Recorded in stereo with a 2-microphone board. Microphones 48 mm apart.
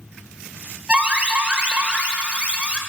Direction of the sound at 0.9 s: 25° right (ahead or behind).